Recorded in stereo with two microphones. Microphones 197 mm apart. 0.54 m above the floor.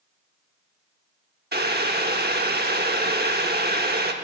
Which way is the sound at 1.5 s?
55° right (ahead or behind).